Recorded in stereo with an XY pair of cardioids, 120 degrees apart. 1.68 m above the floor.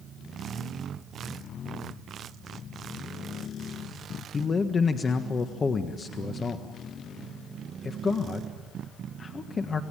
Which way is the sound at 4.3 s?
30° left.